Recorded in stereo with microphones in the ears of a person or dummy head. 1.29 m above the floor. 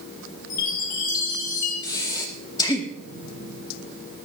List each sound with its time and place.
0.5 s a chime: 60° left (ahead or behind), 3 m
1.8 s breathing: 20° left (ahead or behind), 2.0 m